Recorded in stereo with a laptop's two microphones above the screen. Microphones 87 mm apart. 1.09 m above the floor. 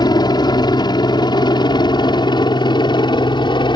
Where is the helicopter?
55° left (ahead or behind); by 3.8 s 65° left (ahead or behind).